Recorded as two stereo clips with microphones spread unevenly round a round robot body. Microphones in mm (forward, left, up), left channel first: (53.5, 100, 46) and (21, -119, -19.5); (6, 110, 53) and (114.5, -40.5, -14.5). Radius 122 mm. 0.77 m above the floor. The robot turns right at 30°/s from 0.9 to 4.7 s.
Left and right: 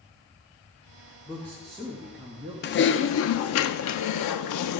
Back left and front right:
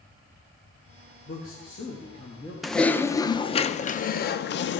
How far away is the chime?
No chime in this recording.